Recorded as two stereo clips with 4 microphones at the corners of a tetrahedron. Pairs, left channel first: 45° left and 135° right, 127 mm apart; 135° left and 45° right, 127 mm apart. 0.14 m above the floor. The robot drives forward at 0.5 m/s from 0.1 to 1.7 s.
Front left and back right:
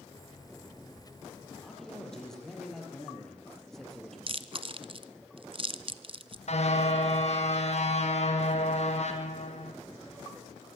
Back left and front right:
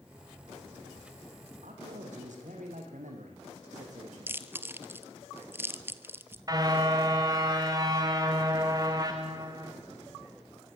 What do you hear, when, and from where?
1.6 s a man speaking: 40° right, 5.5 m
4.3 s chewing: 110° right, 0.9 m
6.5 s a car horn: 15° left, 3 m